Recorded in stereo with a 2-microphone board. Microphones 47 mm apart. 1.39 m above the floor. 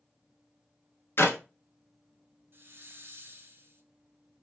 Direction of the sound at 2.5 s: 55° right (ahead or behind).